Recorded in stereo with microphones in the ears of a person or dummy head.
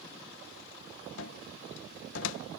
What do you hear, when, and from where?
1.2 s a cupboard door: 75° left (ahead or behind)